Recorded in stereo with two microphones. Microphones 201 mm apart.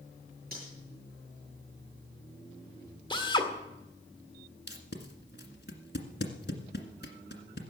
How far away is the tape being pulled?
About 1.8 m.